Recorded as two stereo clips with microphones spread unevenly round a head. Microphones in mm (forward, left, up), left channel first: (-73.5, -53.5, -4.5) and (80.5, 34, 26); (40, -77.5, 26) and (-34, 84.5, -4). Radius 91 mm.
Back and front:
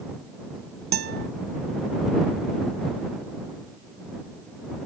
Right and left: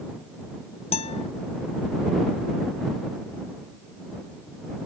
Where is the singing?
I don't hear singing.